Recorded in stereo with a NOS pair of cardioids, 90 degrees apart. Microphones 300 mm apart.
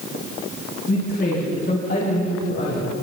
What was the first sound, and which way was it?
A woman speaking, 35° left.